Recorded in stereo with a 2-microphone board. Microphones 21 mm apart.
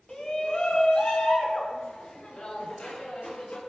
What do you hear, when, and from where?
0.1 s a shout: 40° left (ahead or behind), 3 m; by 3.6 s 70° left (ahead or behind), 7 m